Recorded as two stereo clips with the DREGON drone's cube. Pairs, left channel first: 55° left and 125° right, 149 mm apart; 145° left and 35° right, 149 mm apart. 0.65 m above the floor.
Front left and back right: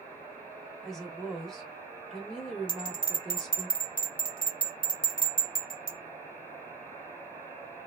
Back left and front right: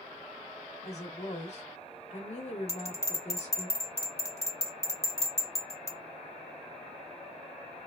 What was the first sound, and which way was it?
A woman speaking, 140° left.